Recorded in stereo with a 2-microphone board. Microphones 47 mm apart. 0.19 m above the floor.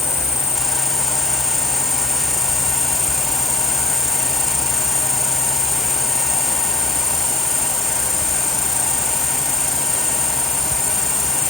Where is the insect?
70° left (ahead or behind).